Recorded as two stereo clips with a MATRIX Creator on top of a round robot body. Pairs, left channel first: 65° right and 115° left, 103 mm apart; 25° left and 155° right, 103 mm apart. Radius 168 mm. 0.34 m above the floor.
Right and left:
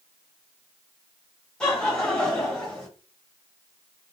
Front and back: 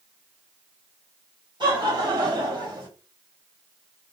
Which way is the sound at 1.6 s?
150° right.